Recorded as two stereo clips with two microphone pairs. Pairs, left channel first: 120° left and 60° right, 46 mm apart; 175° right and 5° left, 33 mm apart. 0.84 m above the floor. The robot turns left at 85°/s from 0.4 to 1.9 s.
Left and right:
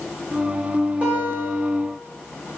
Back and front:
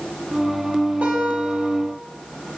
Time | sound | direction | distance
1.0 | a guitar | 5° right | 2.5 m